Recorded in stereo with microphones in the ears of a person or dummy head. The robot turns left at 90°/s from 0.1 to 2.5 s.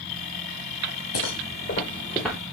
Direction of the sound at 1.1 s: 85° left.